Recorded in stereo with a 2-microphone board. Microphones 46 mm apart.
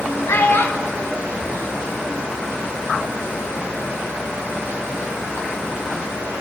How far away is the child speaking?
About 1.2 m.